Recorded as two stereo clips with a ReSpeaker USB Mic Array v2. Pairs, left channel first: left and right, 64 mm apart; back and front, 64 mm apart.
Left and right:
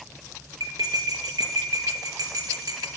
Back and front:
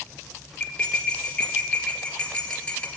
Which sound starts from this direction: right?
Cutlery clinking, at 0.6 s.